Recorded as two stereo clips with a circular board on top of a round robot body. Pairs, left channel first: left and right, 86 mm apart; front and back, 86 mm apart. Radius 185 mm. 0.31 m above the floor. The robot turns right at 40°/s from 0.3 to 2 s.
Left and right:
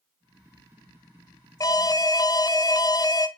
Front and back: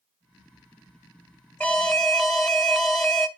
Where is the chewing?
No chewing in this recording.